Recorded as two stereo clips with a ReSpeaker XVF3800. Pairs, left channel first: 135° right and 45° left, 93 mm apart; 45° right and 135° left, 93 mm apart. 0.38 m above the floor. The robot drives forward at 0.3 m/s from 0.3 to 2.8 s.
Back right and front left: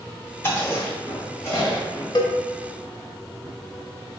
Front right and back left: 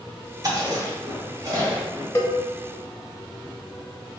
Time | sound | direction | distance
0.4 | chewing | 170° left | 1.2 m
2.1 | a cowbell | 105° right | 0.7 m